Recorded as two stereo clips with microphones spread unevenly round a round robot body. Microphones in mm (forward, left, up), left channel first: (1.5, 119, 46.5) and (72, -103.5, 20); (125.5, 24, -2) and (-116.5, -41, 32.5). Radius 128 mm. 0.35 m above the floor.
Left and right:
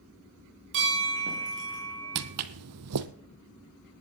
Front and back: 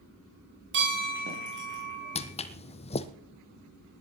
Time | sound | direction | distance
0.7 | a bell | 120° right | 8 m
2.1 | footsteps | 55° right | 0.9 m